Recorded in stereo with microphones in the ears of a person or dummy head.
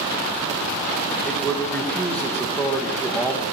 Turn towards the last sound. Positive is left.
turn(degrees=5)  # may be behind; listen again after turning